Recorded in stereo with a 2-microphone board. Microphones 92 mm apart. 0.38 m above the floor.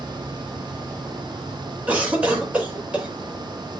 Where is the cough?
15° right (ahead or behind), 1.5 m.